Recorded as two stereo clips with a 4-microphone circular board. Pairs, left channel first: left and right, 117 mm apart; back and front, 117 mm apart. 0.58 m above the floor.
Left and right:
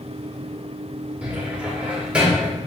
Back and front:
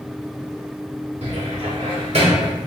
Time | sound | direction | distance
1.2 | a cupboard door | 10° right | 2 m